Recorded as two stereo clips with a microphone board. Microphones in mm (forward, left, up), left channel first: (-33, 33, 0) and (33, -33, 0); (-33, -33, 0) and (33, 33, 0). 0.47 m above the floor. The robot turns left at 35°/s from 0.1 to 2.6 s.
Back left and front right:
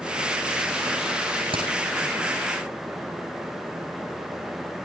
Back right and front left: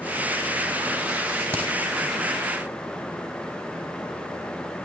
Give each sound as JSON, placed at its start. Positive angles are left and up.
{"t": 1.5, "sound": "a crack", "azimuth_deg": -20, "distance_m": 7.0}